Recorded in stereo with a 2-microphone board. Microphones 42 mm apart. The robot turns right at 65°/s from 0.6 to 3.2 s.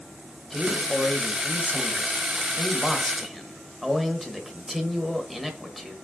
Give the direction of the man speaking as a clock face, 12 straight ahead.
12 o'clock.